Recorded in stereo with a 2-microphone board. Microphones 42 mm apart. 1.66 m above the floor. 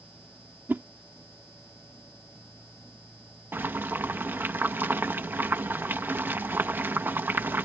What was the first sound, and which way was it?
A whoosh, 50° right (ahead or behind).